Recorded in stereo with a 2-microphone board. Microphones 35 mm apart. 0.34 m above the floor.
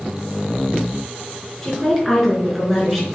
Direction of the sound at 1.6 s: 10° left (ahead or behind).